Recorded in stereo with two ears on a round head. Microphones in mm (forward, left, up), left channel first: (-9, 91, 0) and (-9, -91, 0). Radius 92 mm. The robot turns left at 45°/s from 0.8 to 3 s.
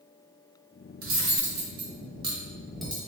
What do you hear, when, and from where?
1.0 s cutlery clinking: 75° right (ahead or behind), 1.1 m; by 3.0 s 10° left (ahead or behind), 1.1 m